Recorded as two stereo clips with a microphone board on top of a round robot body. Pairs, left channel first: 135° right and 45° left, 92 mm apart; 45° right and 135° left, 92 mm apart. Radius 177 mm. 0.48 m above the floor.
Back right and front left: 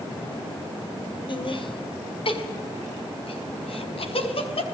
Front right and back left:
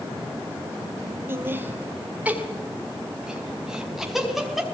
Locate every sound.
1.3 s laughter: 160° right, 4 m; by 4.6 s 135° right, 6 m